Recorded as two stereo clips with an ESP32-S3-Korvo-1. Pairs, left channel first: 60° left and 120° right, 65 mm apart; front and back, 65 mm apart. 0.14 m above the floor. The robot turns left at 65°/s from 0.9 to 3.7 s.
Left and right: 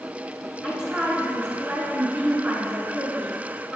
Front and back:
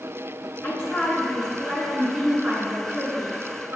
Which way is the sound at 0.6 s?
50° right.